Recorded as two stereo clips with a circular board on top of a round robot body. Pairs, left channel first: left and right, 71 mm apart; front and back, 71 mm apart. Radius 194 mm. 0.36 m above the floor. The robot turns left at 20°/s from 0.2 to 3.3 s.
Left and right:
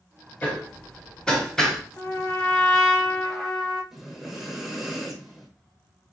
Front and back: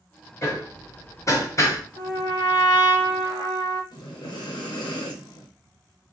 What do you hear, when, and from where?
0.4 s hammering: 30° left, 1.3 m; by 1.8 s straight ahead, 1.3 m
2.0 s a trumpet: 30° left, 0.7 m; by 3.8 s straight ahead, 0.7 m
3.9 s breathing: 5° right, 0.9 m